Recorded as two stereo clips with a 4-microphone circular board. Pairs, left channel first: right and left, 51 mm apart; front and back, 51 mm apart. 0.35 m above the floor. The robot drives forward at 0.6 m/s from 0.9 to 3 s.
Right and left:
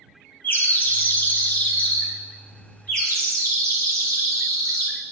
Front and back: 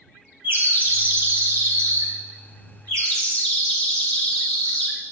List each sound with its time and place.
0.4 s a bird: 135° right, 1.2 m; by 5.0 s 160° right, 2.5 m